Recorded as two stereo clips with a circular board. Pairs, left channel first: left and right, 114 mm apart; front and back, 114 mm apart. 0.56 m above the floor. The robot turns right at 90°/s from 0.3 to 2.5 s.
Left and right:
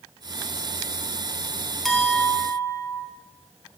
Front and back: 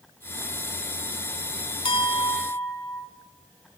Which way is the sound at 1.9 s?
5° left.